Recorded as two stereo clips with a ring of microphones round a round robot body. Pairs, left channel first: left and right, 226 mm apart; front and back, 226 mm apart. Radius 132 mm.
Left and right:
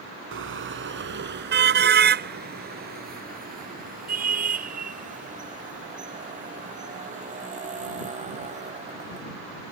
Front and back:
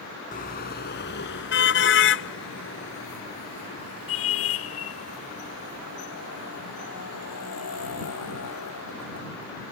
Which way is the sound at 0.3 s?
60° right.